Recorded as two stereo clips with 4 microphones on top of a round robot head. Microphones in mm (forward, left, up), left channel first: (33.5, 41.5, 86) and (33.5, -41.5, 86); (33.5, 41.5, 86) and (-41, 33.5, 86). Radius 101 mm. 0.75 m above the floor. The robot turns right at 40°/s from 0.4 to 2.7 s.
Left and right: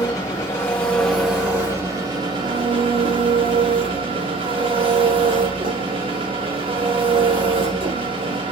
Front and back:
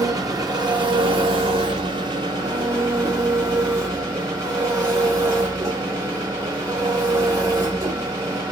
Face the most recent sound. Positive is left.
turn(degrees=-120)